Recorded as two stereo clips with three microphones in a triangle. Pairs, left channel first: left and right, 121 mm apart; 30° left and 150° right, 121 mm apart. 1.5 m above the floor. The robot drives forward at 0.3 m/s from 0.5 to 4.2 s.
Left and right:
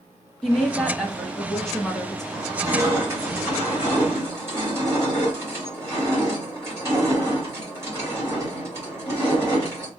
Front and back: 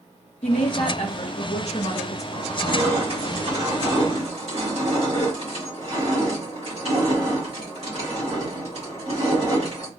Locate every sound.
0.4 s a woman speaking: 5° left, 1.0 m
2.3 s crushing: 145° right, 1.7 m; by 9.9 s 155° right, 2 m